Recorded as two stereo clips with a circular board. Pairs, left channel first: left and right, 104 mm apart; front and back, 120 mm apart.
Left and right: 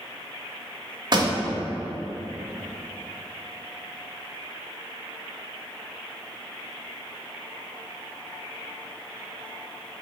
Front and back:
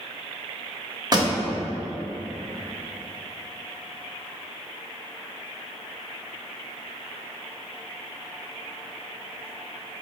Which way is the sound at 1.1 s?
130° right.